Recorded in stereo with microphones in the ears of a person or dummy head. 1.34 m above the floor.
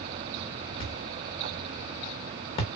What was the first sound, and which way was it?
A thud, 25° left (ahead or behind).